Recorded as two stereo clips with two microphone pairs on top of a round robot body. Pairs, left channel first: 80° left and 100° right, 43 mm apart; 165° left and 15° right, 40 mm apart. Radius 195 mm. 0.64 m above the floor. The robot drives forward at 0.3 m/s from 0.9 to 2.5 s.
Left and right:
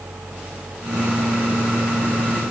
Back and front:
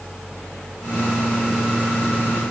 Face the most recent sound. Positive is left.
No sound to turn to.